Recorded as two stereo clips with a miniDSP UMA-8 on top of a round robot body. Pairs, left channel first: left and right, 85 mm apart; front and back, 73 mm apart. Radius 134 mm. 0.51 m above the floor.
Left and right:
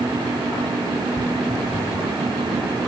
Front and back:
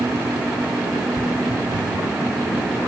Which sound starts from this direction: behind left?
Footsteps, at 1.2 s.